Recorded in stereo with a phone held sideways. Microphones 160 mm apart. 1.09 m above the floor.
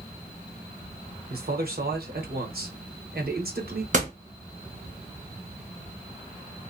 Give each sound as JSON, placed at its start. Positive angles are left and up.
{"t": 1.3, "sound": "a man speaking", "side_deg": -70, "distance_m": 0.9}
{"t": 3.9, "sound": "a door slam", "side_deg": -50, "distance_m": 0.8}